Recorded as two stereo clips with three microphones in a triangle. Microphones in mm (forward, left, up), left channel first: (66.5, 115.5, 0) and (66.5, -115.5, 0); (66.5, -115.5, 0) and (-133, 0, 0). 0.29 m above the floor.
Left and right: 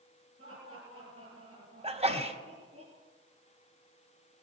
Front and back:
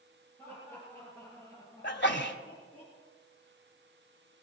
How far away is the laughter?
About 6.5 m.